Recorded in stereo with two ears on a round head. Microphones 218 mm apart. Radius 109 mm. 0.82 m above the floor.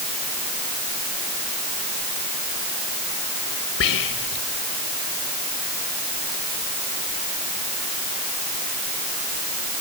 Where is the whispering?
60° left (ahead or behind).